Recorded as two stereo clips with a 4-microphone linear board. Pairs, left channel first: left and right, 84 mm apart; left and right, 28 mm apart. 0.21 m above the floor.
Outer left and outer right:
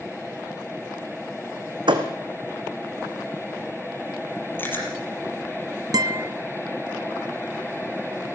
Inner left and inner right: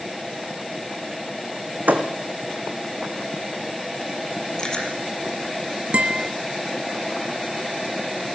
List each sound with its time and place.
1.9 s a thud: 65° right (ahead or behind), 2.5 m
4.6 s chewing: 25° left (ahead or behind), 5.5 m
5.9 s a guitar: 50° right (ahead or behind), 0.8 m